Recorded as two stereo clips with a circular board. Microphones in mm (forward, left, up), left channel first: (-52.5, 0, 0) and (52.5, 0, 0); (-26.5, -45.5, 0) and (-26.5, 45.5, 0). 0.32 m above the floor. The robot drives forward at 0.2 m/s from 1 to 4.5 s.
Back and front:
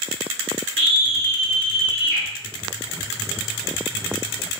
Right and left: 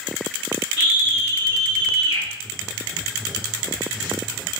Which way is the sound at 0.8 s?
150° right.